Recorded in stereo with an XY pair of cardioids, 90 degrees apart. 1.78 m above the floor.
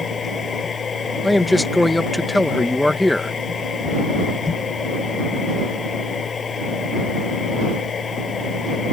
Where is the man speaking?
10° left.